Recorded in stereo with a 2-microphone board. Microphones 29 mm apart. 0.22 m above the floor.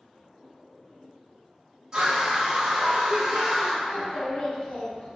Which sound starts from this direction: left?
A child speaking, at 3.9 s.